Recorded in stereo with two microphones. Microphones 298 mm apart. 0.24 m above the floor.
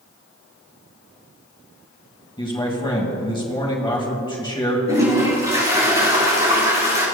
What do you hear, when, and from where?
2.4 s a man speaking: 15° left (ahead or behind), 1.5 m
4.9 s a toilet flushing: 20° right (ahead or behind), 4 m